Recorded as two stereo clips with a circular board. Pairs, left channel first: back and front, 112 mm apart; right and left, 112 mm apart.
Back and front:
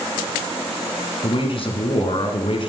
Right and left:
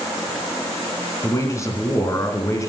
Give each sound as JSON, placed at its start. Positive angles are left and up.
{"t": 1.2, "sound": "a man speaking", "azimuth_deg": -150, "distance_m": 2.5}